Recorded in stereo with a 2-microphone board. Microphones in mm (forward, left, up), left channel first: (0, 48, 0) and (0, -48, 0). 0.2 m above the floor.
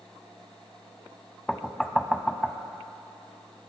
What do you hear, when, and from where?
1.5 s knocking: 5° left (ahead or behind), 0.7 m